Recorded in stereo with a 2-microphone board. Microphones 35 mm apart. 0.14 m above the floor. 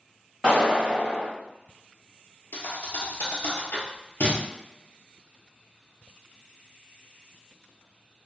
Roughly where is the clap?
Centre.